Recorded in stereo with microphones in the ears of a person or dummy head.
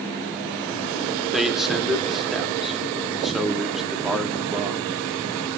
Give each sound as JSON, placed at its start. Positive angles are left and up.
{"t": 1.3, "sound": "a man speaking", "side_deg": 0, "distance_m": 2.5}